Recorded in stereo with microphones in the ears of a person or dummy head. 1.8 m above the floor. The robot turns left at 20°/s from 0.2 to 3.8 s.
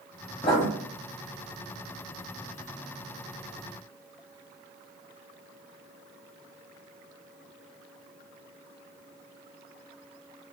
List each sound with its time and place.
0.4 s writing: 25° left (ahead or behind), 1.3 m